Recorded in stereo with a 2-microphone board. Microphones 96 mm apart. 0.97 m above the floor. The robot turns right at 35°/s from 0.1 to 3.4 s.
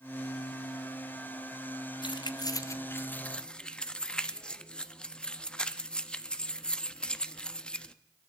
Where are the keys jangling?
55° left (ahead or behind), 0.6 m; by 8.0 s 10° left (ahead or behind), 0.6 m.